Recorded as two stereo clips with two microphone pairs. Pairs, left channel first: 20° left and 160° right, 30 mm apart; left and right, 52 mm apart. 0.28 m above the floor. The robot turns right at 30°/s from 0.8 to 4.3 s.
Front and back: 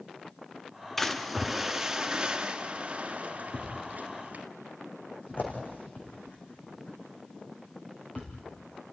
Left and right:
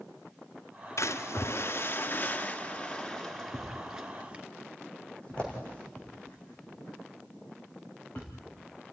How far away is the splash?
About 1.5 m.